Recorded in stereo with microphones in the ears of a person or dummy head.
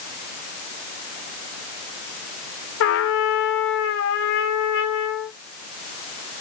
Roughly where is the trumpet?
Left.